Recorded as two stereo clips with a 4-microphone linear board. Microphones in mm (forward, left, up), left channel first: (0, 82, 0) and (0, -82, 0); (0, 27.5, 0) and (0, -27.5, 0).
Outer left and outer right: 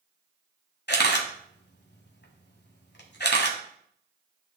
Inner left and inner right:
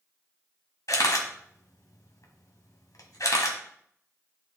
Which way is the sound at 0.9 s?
85° left.